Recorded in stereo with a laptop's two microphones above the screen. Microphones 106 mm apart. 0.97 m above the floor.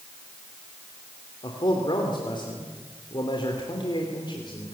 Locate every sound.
1.4 s a man speaking: 50° left (ahead or behind), 3 m